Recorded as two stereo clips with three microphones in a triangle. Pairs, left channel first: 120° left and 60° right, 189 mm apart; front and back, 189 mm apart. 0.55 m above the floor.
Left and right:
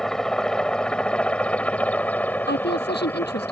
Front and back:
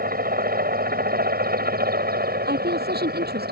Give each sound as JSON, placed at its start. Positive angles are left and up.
{"t": 0.0, "sound": "a helicopter", "azimuth_deg": -155}
{"t": 2.5, "sound": "a woman speaking", "azimuth_deg": 150}